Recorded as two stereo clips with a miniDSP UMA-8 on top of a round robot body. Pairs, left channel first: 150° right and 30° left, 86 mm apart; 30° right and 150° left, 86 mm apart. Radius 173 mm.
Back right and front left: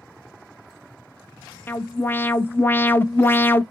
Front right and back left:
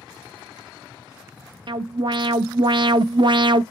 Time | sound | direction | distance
1.7 | an alarm | 150° left | 0.7 m